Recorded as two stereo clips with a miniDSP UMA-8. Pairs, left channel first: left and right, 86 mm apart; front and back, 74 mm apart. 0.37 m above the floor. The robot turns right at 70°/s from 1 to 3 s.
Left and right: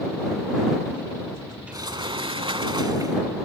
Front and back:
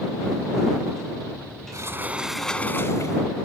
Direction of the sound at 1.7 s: 135° right.